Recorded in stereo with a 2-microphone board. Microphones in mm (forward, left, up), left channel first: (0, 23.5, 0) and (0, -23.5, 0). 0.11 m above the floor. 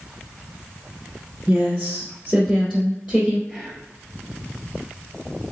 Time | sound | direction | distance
1.5 | a woman speaking | 5° right (ahead or behind) | 1.3 m
3.5 | whispering | centre (ahead or behind) | 2.0 m